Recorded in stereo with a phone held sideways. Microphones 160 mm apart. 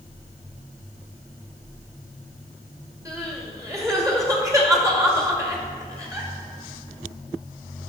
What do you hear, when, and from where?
3.0 s crying: 20° right (ahead or behind), 2 m